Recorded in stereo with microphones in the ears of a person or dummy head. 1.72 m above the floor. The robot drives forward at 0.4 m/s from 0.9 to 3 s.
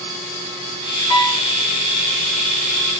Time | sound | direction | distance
1.1 | a piano | 15° left (ahead or behind) | 1.2 m